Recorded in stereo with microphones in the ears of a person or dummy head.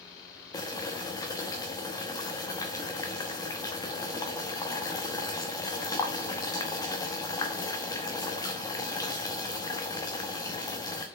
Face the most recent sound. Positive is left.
turn(degrees=20)  # may be behind; listen again after turning